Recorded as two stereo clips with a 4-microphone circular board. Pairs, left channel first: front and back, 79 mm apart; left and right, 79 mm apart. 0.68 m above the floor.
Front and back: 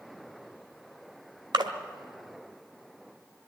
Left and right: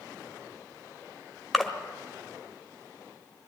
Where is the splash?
Straight behind, 1.6 m.